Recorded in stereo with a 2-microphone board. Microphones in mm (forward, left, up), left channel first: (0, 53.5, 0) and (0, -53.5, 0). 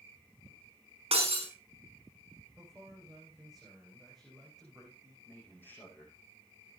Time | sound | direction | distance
1.1 | breaking glass | 75° right (ahead or behind) | 4.5 m
2.6 | a man speaking | 5° right (ahead or behind) | 7.5 m
5.2 | a man speaking | 20° left (ahead or behind) | 7 m